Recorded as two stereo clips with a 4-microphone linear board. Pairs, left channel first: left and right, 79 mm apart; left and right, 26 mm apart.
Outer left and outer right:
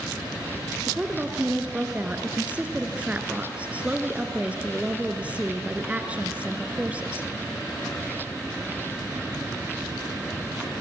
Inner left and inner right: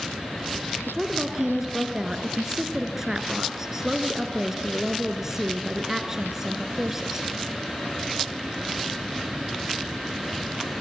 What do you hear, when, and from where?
0.9 s a woman speaking: 20° right (ahead or behind), 1.7 m